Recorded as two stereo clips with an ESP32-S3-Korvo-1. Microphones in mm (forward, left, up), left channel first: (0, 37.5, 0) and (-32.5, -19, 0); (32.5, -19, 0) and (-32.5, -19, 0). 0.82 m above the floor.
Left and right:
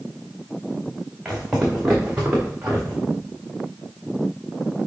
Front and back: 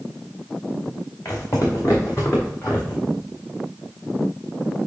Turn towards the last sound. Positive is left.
turn(degrees=-60)